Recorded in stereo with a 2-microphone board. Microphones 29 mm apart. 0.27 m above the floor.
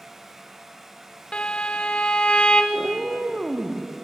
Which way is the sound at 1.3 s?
35° left (ahead or behind).